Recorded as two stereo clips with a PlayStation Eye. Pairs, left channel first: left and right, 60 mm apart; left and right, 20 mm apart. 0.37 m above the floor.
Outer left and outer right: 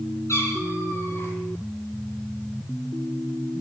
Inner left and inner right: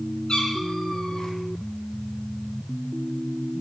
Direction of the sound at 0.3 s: 55° left (ahead or behind).